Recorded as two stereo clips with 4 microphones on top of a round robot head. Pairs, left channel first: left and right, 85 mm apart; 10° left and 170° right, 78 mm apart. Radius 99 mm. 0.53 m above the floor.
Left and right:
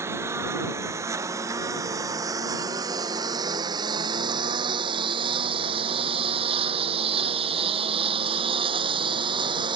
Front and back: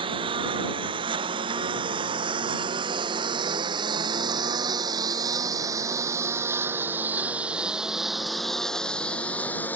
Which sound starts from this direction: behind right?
A lawn mower, at 0.0 s.